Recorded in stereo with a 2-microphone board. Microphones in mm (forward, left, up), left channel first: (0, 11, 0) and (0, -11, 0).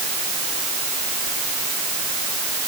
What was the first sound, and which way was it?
Only background noise.